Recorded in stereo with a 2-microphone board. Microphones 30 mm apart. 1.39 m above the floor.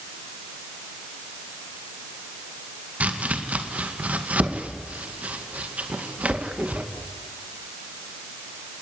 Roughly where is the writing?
No writing in this recording.